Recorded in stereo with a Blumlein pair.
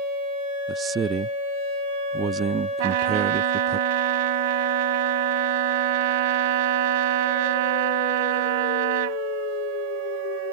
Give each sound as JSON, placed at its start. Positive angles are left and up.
{"t": 0.7, "sound": "a man speaking", "azimuth_deg": -20}
{"t": 2.8, "sound": "a trumpet", "azimuth_deg": -50}